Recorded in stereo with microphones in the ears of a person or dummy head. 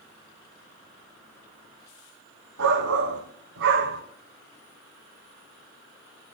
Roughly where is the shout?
Right.